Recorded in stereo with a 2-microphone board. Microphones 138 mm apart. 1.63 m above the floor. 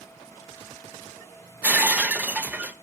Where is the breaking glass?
10° right (ahead or behind), 0.8 m.